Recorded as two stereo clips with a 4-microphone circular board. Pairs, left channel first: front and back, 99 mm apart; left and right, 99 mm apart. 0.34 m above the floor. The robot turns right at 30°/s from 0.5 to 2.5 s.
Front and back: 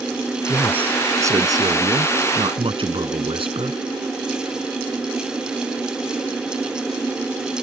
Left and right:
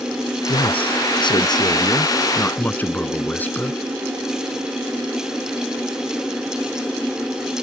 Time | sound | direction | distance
0.5 | a man speaking | 100° left | ?